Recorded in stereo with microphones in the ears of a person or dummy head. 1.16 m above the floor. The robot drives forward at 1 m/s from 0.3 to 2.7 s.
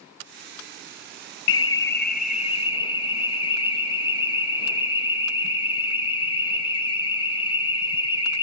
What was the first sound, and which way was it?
An alarm, 65° left (ahead or behind).